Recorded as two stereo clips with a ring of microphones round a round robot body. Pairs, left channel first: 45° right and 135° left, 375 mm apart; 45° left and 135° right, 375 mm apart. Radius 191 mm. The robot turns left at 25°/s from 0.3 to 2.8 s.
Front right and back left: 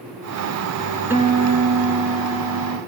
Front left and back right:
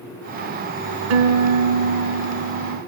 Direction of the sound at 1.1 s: 140° right.